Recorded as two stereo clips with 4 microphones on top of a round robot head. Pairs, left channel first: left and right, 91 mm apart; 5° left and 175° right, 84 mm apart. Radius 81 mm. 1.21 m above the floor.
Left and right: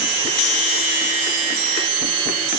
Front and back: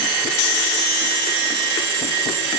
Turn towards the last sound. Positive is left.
No sound to turn to.